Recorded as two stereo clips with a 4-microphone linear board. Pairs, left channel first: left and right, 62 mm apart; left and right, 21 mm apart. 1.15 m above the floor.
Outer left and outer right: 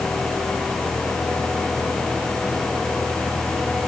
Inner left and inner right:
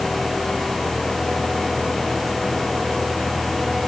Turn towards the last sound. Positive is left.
No sound to turn to.